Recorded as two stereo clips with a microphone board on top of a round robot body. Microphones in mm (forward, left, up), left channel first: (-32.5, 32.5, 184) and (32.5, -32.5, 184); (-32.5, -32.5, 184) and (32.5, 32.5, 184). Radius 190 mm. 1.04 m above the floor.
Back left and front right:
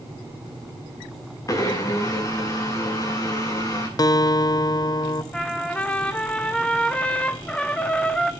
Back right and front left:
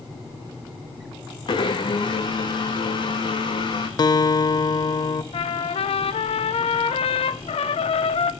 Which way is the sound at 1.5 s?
170° right.